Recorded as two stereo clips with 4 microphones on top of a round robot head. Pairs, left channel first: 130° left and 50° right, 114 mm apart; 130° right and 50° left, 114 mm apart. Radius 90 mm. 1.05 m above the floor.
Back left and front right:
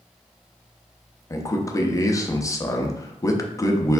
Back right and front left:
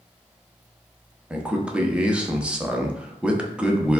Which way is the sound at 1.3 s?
120° left.